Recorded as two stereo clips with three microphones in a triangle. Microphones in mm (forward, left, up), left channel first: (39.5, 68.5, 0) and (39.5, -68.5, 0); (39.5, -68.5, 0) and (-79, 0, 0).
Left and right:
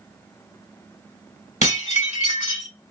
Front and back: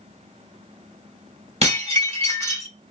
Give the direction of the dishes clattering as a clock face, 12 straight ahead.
8 o'clock.